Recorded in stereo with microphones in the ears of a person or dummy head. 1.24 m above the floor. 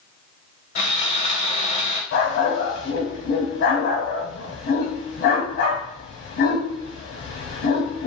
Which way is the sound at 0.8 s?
40° left (ahead or behind).